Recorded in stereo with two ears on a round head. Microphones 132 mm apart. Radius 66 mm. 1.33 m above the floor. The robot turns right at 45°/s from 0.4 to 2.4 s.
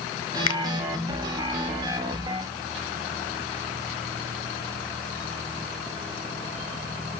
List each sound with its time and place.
0.5 s a finger snap: 30° left (ahead or behind), 1.0 m; by 0.6 s 35° left (ahead or behind), 1.0 m